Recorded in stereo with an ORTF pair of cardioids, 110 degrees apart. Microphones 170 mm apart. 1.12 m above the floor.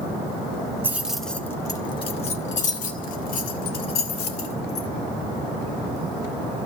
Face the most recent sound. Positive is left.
turn(degrees=70)